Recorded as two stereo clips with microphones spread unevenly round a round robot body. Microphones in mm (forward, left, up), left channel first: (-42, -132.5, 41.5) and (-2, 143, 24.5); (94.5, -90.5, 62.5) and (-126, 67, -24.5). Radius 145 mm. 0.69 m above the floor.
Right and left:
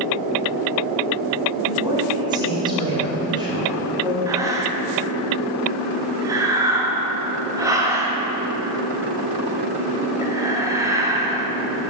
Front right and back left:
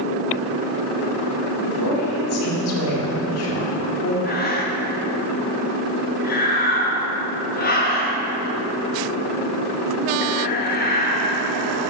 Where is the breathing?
25° left, 1.1 m.